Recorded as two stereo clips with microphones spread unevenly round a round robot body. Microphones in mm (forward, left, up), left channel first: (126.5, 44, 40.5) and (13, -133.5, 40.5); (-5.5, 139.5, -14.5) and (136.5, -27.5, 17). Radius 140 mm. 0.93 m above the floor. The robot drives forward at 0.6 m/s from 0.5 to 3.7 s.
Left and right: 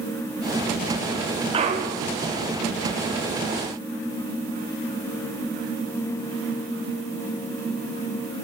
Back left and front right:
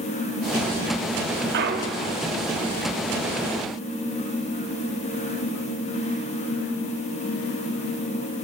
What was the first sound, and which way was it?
A clunk, 60° right.